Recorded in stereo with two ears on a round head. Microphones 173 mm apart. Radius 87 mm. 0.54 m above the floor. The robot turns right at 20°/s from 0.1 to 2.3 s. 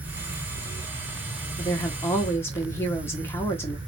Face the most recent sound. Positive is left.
turn(degrees=15)  # may be behind; listen again after turning